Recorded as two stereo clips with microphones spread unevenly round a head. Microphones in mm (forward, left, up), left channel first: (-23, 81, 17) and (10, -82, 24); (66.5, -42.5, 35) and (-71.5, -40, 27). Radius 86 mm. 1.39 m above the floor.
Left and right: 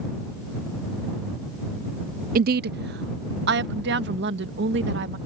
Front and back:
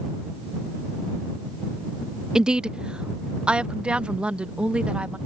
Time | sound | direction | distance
2.4 | a woman speaking | 100° right | ?